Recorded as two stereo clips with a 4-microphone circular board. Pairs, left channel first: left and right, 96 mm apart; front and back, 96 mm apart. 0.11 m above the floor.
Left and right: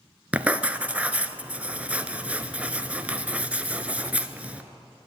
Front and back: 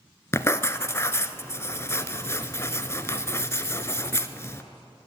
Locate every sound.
0.3 s writing: 30° right, 0.6 m